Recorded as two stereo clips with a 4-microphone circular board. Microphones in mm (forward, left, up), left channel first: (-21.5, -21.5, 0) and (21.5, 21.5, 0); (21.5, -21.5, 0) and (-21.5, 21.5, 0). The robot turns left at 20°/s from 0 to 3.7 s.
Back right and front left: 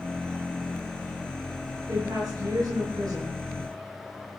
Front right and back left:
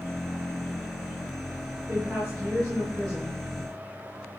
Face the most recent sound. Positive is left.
turn(degrees=45)